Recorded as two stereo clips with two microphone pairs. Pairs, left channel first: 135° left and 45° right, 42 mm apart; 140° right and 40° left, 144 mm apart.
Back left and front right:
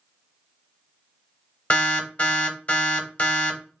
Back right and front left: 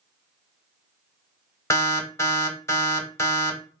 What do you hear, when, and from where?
1.7 s an alarm: 160° left, 0.7 m